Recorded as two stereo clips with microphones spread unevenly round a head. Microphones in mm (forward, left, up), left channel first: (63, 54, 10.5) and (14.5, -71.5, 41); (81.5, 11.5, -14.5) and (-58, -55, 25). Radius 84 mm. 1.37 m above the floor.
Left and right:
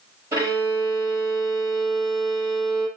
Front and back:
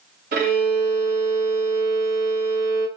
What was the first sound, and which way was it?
A violin, straight behind.